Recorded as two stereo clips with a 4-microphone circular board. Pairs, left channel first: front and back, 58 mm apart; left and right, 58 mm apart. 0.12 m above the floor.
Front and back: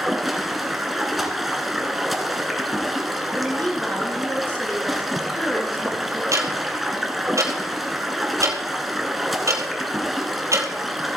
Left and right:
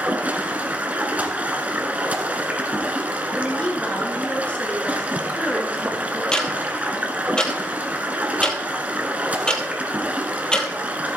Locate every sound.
0.0 s running water: 95° right, 1.2 m
3.4 s a woman speaking: 40° left, 1.8 m
6.3 s ticking: 165° left, 1.5 m